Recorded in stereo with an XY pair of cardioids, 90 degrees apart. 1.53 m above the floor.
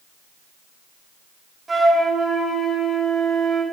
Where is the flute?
30° right, 2 m.